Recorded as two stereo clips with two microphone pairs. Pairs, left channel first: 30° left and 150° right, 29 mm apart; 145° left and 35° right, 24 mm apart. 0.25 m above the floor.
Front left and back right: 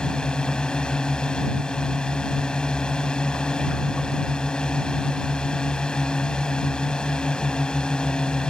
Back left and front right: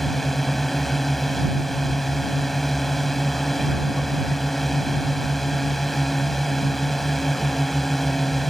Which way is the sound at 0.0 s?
65° left.